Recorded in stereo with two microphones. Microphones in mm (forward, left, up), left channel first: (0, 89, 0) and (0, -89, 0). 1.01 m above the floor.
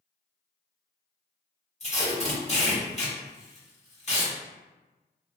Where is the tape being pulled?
40° left (ahead or behind), 1.0 m.